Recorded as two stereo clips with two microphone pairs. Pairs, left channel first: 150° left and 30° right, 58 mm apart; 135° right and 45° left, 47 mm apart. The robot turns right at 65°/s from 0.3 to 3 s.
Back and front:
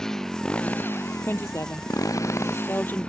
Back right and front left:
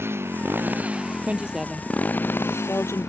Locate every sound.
0.0 s a motorcycle: 70° left; by 3.1 s 140° right
1.2 s a woman speaking: 95° left; by 3.1 s 145° right